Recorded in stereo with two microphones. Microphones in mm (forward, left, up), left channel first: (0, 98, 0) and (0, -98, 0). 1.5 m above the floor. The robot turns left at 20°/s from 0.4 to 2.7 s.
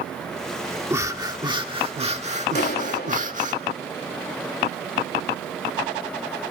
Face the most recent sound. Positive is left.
turn(degrees=55)  # may be behind; listen again after turning